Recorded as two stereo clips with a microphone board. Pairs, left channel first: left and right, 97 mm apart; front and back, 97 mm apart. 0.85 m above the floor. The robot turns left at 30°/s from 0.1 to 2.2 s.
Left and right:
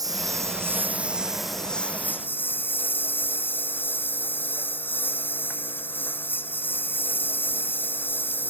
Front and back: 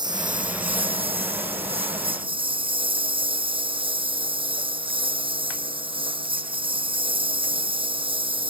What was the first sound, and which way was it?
A lawn mower, 140° right.